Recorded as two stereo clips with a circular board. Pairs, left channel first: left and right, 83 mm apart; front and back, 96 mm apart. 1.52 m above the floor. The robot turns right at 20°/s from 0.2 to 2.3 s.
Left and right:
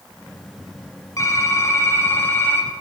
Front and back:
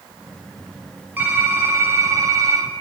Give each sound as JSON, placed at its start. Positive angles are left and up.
{"t": 1.2, "sound": "typing on a keyboard", "azimuth_deg": 120, "distance_m": 1.2}